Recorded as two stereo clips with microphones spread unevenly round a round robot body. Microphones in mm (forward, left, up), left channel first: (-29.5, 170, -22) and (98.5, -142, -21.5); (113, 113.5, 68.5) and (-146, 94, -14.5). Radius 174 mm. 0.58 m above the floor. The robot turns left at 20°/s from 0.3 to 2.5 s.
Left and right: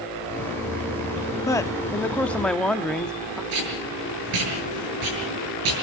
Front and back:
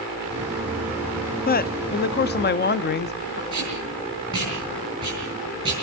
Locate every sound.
1.5 s a man speaking: 50° left, 0.7 m; by 3.4 s 30° left, 0.7 m
3.5 s tape being pulled: 100° right, 7.5 m